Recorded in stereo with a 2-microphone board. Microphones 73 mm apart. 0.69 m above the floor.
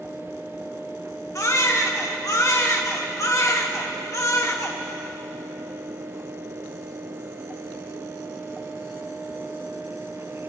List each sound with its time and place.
1.4 s a baby crying: 50° left (ahead or behind), 1.1 m